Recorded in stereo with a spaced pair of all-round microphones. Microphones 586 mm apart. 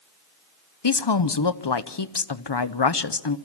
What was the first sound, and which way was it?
A woman speaking, 45° left (ahead or behind).